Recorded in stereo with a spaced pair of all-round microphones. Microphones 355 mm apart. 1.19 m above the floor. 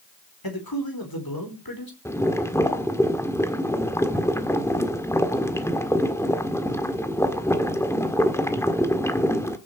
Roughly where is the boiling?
Centre.